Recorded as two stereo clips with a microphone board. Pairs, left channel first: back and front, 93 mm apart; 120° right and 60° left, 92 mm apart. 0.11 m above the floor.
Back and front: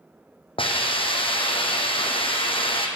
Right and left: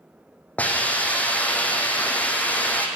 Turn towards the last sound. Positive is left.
turn(degrees=165)